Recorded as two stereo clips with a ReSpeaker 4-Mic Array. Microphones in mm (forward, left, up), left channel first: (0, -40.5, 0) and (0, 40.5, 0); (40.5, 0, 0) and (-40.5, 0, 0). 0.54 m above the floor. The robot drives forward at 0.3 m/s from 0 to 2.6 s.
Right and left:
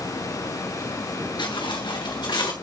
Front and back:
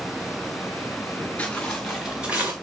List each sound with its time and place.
1.4 s footsteps: 75° right, 3 m; by 2.5 s 115° right, 2.5 m